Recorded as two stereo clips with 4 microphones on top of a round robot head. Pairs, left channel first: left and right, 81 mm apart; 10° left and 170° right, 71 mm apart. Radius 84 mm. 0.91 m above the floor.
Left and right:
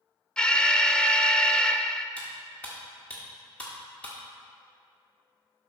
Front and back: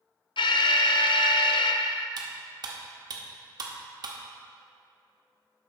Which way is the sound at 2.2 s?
165° left.